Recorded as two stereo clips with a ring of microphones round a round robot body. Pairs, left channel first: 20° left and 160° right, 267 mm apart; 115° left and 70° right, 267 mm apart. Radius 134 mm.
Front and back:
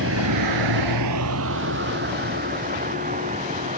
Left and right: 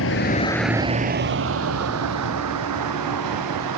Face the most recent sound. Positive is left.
turn(degrees=-90)